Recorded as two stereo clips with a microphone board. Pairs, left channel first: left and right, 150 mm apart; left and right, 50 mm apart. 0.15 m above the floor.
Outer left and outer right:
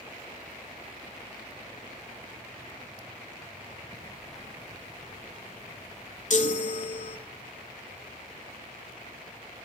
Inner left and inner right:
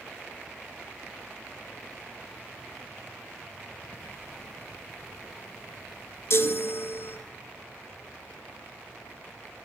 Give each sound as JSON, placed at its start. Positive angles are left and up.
{"t": 3.9, "sound": "ticking", "side_deg": 0, "distance_m": 2.0}
{"t": 6.3, "sound": "a chime", "side_deg": 55, "distance_m": 0.5}